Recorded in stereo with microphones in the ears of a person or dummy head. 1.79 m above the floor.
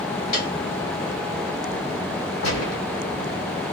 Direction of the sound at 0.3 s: 50° left (ahead or behind).